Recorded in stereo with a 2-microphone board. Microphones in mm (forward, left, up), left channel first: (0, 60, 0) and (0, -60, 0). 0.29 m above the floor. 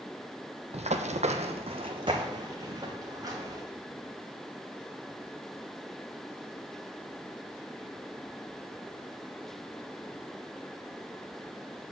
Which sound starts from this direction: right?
Running footsteps, at 0.7 s.